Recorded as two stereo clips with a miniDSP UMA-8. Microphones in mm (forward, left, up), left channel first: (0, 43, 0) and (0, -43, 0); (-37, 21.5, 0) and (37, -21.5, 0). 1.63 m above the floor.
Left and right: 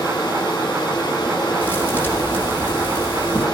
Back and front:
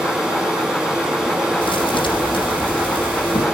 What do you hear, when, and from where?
0.0 s running water: 55° left, 7.5 m
1.6 s a thud: 160° left, 8 m